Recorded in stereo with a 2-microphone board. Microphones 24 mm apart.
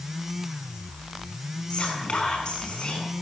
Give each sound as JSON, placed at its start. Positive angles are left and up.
{"t": 1.7, "sound": "whispering", "side_deg": 40, "distance_m": 7.5}